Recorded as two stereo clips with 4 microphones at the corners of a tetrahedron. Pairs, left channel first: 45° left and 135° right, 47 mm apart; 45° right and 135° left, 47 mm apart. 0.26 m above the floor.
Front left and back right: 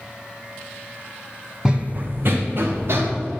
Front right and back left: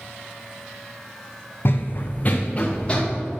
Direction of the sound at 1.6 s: 65° right.